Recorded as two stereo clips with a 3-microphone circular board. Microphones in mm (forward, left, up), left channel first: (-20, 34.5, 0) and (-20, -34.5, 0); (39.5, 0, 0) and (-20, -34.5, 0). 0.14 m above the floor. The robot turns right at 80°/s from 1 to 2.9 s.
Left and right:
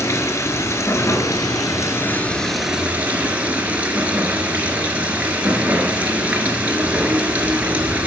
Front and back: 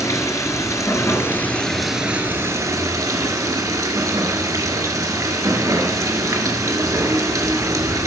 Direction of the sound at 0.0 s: 55° left.